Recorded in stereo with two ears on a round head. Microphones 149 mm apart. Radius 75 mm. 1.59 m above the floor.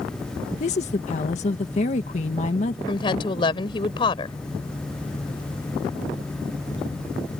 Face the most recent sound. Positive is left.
turn(degrees=30)  # may be behind; listen again after turning